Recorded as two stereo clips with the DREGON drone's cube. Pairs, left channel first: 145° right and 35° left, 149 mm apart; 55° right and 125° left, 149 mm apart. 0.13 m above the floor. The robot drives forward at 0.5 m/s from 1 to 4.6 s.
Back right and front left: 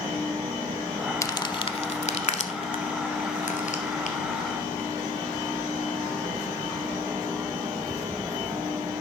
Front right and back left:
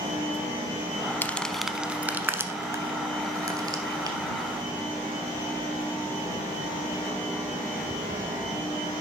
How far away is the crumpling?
About 0.5 m.